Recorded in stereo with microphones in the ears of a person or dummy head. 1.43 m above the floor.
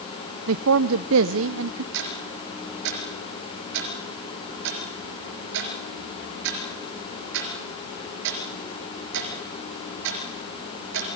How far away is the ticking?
About 3.5 m.